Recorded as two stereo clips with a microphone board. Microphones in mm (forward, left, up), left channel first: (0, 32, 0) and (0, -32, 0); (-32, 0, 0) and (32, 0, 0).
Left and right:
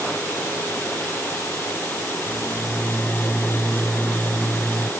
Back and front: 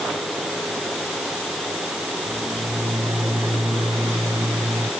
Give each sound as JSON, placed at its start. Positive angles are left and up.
{"t": 2.3, "sound": "a microwave", "azimuth_deg": 0}